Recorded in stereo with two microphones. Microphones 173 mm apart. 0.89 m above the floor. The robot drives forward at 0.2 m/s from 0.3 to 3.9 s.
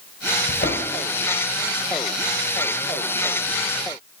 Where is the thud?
70° left (ahead or behind), 2 m.